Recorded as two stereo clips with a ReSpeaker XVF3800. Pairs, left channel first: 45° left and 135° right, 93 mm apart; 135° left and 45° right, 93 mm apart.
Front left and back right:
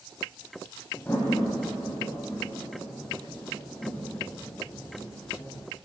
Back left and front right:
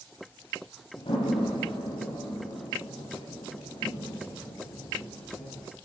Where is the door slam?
115° left, 8.5 m.